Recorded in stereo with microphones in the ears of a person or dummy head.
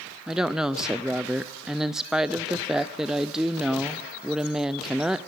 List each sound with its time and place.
0.3 s a woman speaking: 5° right (ahead or behind), 0.5 m